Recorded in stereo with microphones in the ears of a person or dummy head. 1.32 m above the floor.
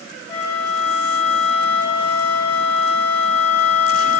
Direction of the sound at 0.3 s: 10° left (ahead or behind).